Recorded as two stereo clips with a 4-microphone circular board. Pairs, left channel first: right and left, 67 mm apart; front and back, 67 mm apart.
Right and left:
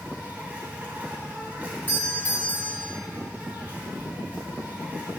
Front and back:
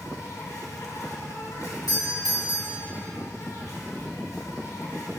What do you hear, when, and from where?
0.0 s an insect: 25° left, 3 m
1.9 s a doorbell: 30° right, 3 m